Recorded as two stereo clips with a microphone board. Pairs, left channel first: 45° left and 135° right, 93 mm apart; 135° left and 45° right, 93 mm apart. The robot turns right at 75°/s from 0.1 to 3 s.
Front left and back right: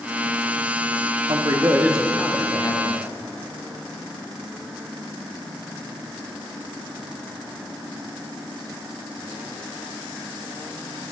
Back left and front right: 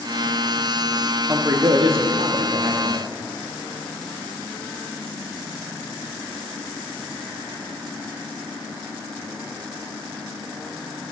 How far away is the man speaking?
About 1.1 m.